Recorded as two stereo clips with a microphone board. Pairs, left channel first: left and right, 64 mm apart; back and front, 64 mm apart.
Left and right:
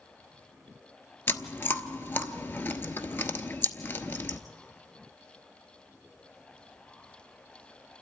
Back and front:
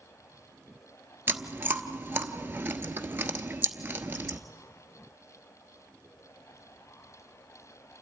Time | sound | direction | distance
1.3 | chewing | 50° left | 0.8 m